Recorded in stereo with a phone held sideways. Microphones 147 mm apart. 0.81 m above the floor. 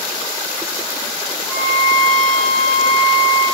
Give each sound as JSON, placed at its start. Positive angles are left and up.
{"t": 1.5, "sound": "a violin", "side_deg": 25, "distance_m": 2.0}